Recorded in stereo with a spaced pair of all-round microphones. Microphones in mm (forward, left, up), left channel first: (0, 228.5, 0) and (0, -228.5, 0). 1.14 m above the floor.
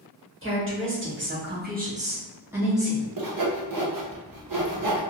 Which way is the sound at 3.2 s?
50° right (ahead or behind).